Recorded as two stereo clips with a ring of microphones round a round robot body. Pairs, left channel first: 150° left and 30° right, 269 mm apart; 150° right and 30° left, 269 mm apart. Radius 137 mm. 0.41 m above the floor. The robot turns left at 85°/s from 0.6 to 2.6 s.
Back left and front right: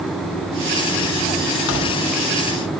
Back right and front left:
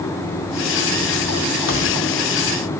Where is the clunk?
No clunk in this recording.